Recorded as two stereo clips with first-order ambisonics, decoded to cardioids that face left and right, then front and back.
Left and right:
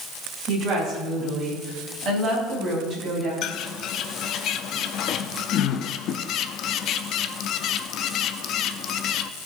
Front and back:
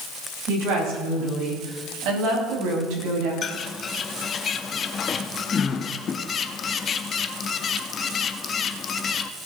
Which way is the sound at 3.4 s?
55° left.